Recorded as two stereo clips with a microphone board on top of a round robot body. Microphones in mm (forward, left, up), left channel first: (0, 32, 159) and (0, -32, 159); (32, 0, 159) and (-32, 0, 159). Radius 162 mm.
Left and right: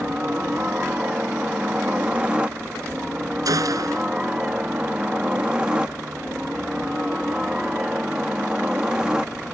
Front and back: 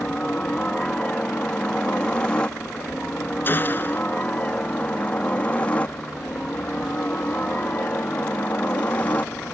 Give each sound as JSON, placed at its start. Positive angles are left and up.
{"t": 0.0, "sound": "a helicopter", "azimuth_deg": -50}
{"t": 3.5, "sound": "a gunshot", "azimuth_deg": -60}